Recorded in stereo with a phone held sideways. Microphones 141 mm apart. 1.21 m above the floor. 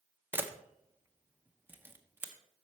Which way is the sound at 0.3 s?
15° right (ahead or behind).